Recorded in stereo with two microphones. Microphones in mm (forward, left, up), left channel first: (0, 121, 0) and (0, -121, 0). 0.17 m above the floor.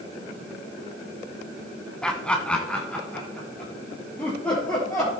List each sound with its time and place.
2.0 s laughter: 5° left (ahead or behind), 1.1 m